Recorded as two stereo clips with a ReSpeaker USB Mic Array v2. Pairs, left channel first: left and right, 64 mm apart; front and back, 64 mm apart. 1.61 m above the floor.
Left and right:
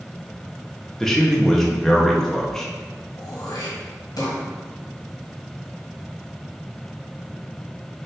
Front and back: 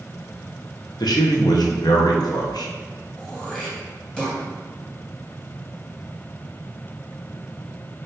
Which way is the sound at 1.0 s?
5° left.